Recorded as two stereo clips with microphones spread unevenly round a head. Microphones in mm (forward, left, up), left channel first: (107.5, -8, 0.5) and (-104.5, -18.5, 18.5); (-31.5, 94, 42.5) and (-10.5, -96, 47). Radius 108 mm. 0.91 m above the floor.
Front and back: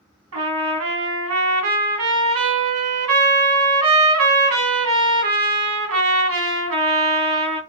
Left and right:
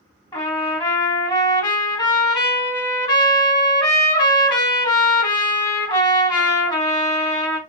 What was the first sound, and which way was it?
A trumpet, 160° left.